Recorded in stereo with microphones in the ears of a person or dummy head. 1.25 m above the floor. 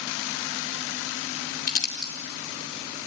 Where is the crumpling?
50° left (ahead or behind), 3 m.